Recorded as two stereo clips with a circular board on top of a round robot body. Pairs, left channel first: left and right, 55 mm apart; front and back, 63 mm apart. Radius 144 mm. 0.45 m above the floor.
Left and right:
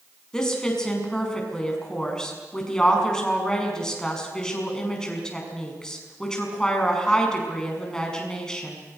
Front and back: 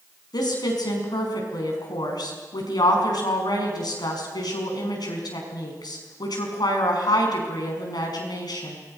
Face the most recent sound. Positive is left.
turn(degrees=15)